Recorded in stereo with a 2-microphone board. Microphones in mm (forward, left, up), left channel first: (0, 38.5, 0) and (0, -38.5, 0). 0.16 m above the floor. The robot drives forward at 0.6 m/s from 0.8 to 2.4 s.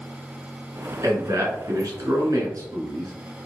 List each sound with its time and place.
1.0 s a man speaking: 45° right (ahead or behind), 1.8 m